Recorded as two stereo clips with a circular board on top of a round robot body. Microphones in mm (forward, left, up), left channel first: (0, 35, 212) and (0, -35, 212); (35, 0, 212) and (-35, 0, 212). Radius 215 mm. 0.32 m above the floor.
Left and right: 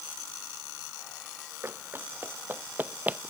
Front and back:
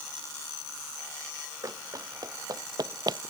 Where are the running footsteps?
145° right; by 3.3 s 160° right.